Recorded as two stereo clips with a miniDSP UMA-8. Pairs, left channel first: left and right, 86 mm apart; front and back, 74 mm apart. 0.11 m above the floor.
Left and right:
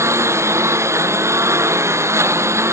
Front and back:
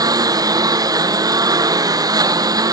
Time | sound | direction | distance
0.0 | a lawn mower | 150° right | ?